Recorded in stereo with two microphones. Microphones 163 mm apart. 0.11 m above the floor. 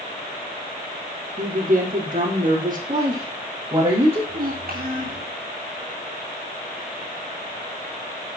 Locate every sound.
1.4 s a woman speaking: 55° right (ahead or behind), 5.5 m
2.9 s a woman speaking: 35° right (ahead or behind), 5.5 m
4.3 s a child speaking: 60° right (ahead or behind), 4.5 m